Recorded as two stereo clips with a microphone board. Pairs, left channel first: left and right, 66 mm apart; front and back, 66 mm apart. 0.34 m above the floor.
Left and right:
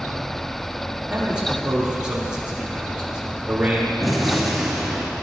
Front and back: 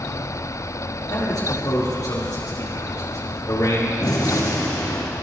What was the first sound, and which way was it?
A man speaking, 15° right.